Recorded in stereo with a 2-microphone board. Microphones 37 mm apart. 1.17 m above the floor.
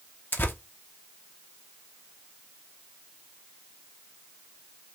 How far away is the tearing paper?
About 0.8 m.